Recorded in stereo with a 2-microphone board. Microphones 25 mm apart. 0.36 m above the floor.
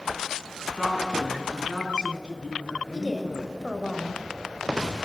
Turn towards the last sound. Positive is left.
turn(degrees=0)  # may be behind; listen again after turning